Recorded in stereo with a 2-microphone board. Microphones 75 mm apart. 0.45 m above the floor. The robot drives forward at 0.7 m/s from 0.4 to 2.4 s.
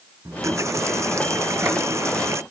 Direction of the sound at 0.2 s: 40° right (ahead or behind).